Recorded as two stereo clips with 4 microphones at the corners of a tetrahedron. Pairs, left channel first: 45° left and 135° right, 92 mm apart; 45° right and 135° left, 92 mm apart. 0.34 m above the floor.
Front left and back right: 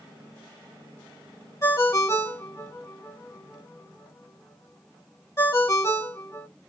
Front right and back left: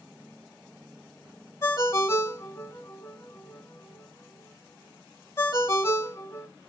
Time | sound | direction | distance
1.6 | a ringtone | straight ahead | 0.7 m